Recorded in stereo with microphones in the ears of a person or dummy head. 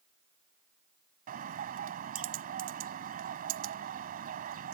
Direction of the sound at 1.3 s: 45° right (ahead or behind).